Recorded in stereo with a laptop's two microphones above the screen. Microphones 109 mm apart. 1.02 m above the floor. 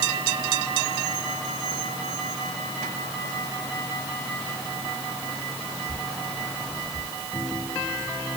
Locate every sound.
Only background noise.